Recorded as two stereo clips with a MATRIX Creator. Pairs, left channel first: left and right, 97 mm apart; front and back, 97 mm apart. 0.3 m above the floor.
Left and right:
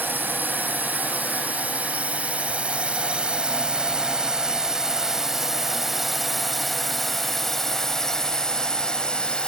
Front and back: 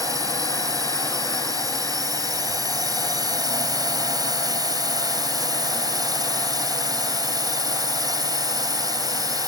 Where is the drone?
150° right; by 9.5 s 165° left.